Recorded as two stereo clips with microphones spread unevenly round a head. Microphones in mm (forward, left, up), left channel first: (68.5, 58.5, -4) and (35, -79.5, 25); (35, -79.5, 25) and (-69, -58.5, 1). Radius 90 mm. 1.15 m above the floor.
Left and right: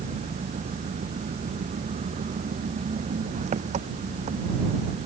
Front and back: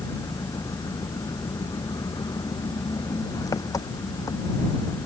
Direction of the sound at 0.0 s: 70° right.